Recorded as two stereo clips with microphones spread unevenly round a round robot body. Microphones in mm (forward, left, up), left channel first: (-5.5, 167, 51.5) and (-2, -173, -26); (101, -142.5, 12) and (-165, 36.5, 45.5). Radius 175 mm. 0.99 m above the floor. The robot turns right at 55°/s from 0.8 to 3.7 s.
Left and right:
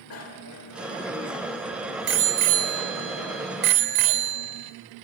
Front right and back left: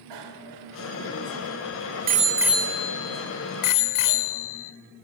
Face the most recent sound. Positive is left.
turn(degrees=-60)